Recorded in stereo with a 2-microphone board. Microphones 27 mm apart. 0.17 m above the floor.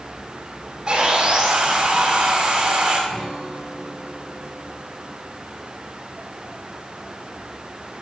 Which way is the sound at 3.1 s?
30° left (ahead or behind).